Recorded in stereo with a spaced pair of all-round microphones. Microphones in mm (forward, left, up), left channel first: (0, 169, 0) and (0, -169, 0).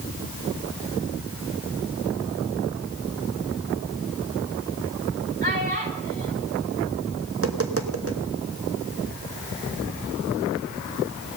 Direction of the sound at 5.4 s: 30° right (ahead or behind).